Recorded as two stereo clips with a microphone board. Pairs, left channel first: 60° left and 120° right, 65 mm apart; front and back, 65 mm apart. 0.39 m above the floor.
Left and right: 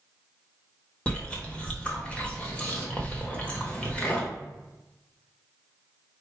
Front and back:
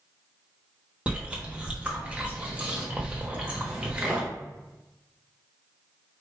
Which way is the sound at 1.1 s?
120° left.